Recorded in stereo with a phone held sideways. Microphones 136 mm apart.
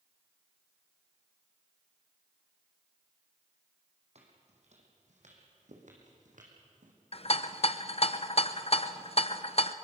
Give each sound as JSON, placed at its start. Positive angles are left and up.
{"t": 4.2, "sound": "footsteps", "side_deg": -55, "distance_m": 3.5}
{"t": 7.1, "sound": "a rattle", "side_deg": 50, "distance_m": 0.7}